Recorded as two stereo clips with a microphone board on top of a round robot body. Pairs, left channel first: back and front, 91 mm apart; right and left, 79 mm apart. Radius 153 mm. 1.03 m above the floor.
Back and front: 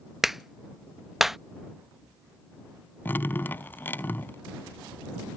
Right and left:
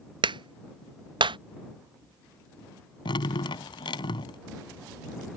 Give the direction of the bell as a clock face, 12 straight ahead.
No bell in this recording.